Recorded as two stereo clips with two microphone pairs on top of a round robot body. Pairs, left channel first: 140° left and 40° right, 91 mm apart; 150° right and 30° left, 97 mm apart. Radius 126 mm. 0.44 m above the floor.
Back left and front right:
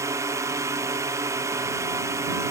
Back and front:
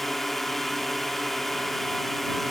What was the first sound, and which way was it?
A drone, 65° right.